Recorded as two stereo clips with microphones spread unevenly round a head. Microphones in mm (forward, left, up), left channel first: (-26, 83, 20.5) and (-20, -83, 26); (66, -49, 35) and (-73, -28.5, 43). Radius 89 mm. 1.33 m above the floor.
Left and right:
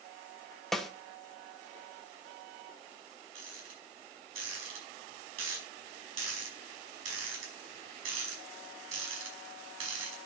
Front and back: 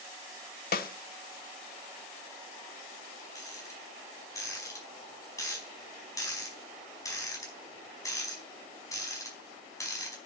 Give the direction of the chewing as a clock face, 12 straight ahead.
I don't hear chewing.